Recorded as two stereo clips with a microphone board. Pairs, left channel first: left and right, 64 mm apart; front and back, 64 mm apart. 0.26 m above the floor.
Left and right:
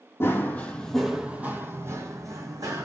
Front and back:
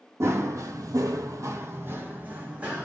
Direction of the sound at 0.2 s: 140° left.